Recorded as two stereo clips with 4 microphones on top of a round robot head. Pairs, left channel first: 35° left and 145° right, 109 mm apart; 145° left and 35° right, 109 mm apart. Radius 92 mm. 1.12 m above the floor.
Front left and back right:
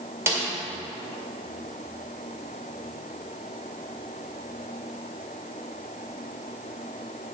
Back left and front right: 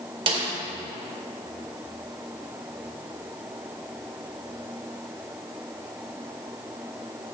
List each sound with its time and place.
0.3 s a snare drum: 75° right, 2.5 m